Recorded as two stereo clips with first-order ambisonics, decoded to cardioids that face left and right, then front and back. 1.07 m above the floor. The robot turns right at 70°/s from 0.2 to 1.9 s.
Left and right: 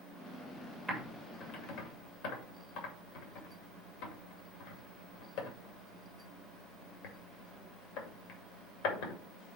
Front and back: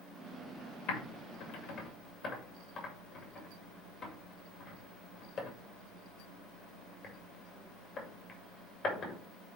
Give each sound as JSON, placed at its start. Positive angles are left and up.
{"t": 0.9, "sound": "typing on a keyboard", "azimuth_deg": -5, "distance_m": 2.5}